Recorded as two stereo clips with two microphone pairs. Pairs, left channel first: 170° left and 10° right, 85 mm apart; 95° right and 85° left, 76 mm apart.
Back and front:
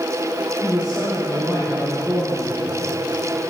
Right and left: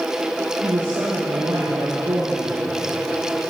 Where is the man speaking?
70° left, 7.5 m.